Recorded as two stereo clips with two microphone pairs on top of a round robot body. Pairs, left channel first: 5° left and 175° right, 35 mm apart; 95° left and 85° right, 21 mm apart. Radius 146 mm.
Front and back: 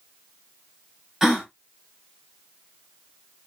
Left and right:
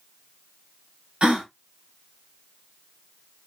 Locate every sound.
1.2 s a gasp: 100° right, 2 m